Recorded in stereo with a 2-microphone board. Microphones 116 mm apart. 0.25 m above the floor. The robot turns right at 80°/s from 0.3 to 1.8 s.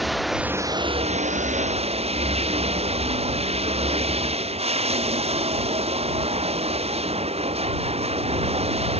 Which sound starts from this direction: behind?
Running water, at 0.0 s.